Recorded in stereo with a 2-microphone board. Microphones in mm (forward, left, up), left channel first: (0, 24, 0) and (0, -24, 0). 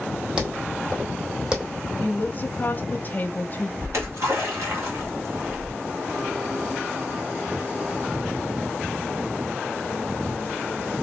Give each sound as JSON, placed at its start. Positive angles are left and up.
{"t": 0.4, "sound": "footsteps", "side_deg": -15, "distance_m": 2.0}
{"t": 2.0, "sound": "a woman speaking", "side_deg": 35, "distance_m": 0.9}
{"t": 3.8, "sound": "a splash", "side_deg": -70, "distance_m": 2.5}